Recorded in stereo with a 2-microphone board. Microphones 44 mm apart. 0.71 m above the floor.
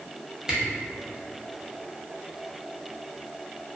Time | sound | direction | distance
0.5 | a camera shutter | 15° right (ahead or behind) | 0.6 m